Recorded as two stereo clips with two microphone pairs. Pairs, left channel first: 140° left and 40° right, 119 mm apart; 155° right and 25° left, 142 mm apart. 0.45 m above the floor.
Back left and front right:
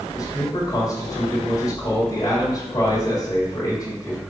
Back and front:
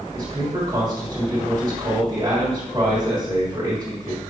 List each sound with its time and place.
0.1 s a man speaking: 90° left, 2 m